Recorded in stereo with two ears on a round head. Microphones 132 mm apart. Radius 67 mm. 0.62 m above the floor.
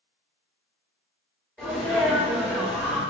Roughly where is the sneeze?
Centre.